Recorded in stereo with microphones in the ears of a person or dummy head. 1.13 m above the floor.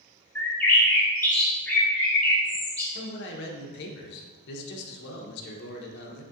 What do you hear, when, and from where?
0.3 s a bird: 10° left (ahead or behind), 0.8 m
3.0 s a man speaking: 60° left (ahead or behind), 1.0 m